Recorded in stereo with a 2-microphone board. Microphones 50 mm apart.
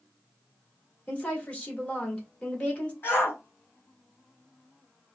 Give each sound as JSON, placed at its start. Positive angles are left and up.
{"t": 1.1, "sound": "a woman speaking", "side_deg": 25, "distance_m": 1.8}
{"t": 3.0, "sound": "a shout", "side_deg": 45, "distance_m": 2.5}